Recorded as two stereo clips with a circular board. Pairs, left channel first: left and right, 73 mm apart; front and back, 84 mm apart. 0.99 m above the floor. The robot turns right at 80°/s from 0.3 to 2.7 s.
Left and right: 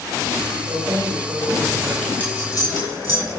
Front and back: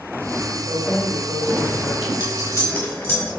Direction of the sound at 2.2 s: 25° left.